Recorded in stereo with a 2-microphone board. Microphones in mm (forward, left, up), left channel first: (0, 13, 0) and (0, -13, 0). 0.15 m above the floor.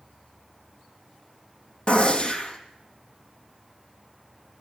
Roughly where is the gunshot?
Left.